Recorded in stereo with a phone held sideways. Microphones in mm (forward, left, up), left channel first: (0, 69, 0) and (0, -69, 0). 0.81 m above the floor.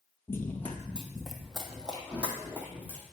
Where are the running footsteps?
15° left (ahead or behind), 0.8 m; by 3.0 s 15° right (ahead or behind), 1.7 m.